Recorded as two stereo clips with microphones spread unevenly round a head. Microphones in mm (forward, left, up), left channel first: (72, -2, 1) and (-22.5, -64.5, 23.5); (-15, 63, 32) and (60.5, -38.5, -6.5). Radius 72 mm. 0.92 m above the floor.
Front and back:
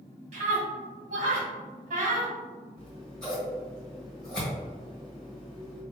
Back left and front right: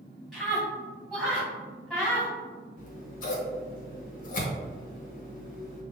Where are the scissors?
110° left, 1.3 m.